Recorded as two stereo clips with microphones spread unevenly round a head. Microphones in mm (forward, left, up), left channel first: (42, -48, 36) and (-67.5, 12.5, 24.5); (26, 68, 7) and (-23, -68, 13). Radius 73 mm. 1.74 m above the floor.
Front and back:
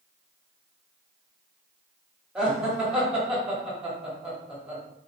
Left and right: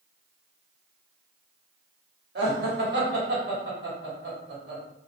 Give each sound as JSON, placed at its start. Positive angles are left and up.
{"t": 2.4, "sound": "laughter", "azimuth_deg": -125, "distance_m": 1.4}